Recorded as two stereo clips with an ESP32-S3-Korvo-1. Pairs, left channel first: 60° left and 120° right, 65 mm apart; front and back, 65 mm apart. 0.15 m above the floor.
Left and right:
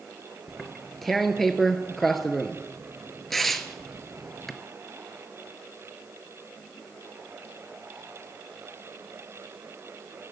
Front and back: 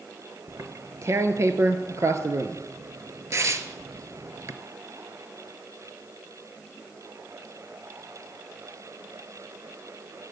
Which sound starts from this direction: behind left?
Tearing paper, at 0.5 s.